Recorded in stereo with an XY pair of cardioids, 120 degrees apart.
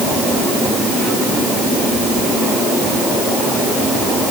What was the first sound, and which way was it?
Only background noise.